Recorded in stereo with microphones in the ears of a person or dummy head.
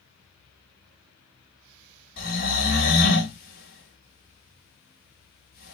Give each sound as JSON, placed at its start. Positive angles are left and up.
{"t": 2.2, "sound": "snoring", "side_deg": 45, "distance_m": 1.2}